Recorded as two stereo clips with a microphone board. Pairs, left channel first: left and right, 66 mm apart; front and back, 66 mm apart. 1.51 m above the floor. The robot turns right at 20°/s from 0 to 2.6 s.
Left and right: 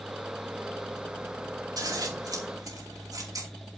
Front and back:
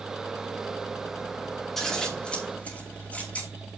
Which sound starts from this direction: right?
Scissors, at 1.8 s.